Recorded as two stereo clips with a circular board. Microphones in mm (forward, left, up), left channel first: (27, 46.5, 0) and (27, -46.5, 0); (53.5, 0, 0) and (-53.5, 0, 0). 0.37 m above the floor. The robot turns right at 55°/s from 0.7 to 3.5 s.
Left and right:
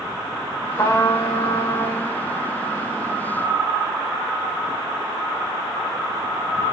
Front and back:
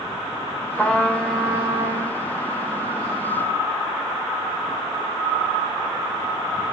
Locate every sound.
0.8 s a trumpet: 65° left, 1.7 m; by 2.2 s 140° left, 1.7 m